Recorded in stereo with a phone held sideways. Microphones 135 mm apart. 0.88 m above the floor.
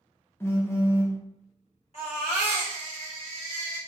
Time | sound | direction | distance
0.4 | a phone buzzing | 20° left (ahead or behind) | 0.5 m
1.9 | a baby crying | 50° left (ahead or behind) | 2.0 m